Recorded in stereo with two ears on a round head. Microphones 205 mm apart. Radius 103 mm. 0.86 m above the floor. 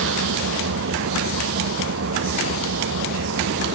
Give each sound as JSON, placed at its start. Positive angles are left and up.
{"t": 0.0, "sound": "an engine running", "side_deg": -55}